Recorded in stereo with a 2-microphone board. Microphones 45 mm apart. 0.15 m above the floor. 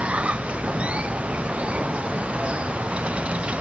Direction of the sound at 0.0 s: 25° right (ahead or behind).